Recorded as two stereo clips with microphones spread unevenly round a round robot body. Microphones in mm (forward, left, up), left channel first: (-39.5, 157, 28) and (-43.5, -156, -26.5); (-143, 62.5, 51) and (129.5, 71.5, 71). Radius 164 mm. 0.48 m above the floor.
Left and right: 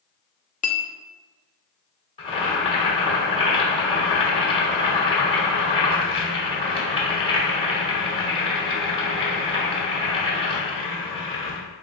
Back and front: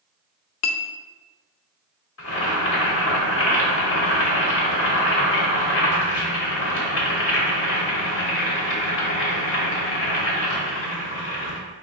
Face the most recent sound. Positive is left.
turn(degrees=165)